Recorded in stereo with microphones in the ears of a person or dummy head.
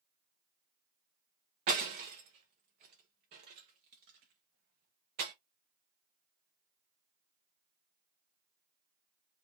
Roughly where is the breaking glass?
Right.